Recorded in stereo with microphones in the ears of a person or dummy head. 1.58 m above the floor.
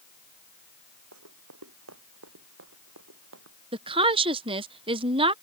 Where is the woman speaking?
25° right (ahead or behind).